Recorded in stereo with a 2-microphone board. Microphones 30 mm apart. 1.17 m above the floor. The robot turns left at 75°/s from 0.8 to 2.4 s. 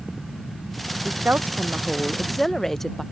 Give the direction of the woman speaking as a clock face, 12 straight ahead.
3 o'clock.